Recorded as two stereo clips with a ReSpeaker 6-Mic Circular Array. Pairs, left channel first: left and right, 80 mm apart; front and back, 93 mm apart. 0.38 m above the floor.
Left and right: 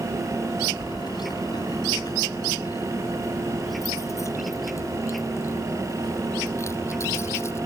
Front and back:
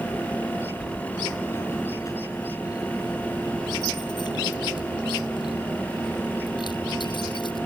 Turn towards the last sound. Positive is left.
turn(degrees=35)